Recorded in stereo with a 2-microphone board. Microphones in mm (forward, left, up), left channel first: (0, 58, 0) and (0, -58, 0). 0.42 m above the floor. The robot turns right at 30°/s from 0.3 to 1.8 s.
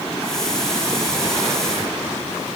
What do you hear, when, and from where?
Only background noise.